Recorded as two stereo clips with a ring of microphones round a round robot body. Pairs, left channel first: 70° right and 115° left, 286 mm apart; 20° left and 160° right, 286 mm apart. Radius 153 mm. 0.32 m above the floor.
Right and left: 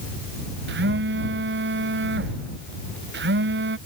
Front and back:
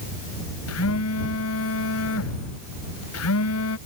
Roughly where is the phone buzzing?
Ahead left.